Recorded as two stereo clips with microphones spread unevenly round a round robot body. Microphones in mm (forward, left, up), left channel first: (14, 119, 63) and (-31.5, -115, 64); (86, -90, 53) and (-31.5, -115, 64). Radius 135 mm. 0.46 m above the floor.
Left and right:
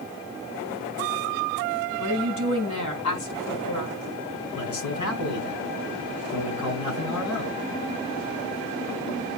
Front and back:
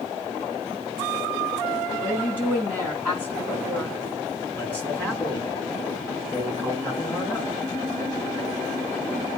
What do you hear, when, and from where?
2.0 s a woman speaking: 110° left, 5.5 m
4.5 s a man speaking: 105° left, 6 m